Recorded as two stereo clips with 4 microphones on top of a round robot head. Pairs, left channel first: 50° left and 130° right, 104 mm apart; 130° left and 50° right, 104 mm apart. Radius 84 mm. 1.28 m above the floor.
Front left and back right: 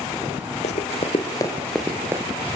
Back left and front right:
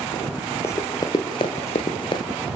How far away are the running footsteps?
About 2 m.